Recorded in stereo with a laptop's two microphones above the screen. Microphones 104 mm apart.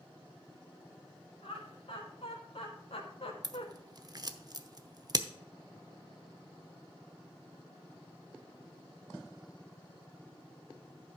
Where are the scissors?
40° right (ahead or behind), 0.8 m.